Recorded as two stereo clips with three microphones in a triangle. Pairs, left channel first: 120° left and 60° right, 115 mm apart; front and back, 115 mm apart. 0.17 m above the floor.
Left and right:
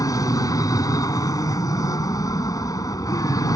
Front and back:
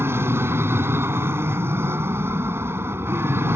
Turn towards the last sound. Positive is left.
turn(degrees=130)